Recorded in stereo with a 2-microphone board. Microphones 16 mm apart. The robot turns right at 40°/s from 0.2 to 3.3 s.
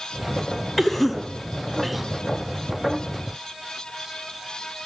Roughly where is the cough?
Centre.